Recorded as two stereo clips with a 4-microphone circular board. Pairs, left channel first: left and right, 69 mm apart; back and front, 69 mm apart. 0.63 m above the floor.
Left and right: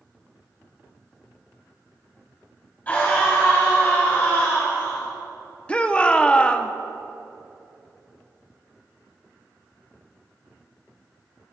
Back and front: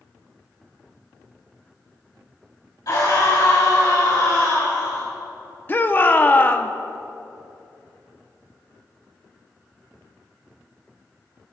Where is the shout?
150° left, 0.8 m.